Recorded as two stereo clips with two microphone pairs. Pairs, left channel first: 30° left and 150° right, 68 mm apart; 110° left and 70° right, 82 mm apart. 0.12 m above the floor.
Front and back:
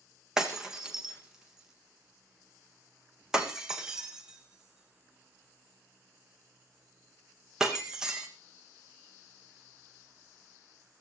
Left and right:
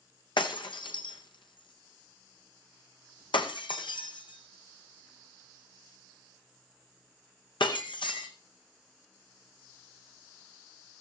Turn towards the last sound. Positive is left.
turn(degrees=125)